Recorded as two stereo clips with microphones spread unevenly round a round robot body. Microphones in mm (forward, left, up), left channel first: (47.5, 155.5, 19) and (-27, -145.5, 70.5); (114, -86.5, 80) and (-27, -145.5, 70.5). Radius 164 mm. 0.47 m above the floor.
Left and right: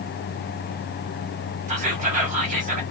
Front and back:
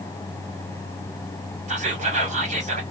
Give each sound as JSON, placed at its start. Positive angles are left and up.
{"t": 1.7, "sound": "whispering", "azimuth_deg": -165, "distance_m": 1.6}